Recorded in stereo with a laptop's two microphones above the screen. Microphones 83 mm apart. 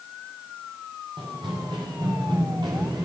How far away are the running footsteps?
About 8 m.